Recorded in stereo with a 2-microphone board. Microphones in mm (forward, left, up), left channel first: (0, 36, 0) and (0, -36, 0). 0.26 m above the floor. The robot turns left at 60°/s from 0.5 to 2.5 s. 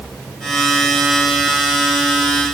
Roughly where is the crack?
I don't hear a crack.